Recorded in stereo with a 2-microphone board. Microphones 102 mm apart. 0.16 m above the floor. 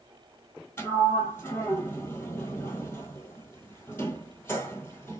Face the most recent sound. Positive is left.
turn(degrees=20)  # may be behind; listen again after turning